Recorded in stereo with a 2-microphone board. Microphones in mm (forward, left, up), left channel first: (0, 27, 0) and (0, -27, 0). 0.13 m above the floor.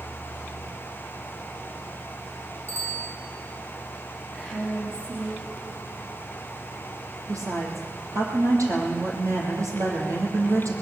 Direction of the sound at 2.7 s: 70° right (ahead or behind).